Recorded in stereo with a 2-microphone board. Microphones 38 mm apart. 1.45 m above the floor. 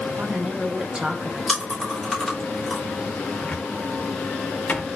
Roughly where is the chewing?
Centre.